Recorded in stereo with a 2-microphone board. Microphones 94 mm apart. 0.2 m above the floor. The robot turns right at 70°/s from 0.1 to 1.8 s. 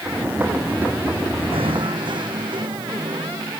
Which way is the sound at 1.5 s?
80° right.